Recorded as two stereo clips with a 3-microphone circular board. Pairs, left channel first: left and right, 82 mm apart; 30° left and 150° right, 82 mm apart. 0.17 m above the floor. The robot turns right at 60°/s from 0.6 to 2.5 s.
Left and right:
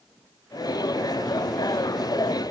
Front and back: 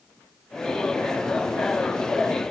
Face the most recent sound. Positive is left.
No sound to turn to.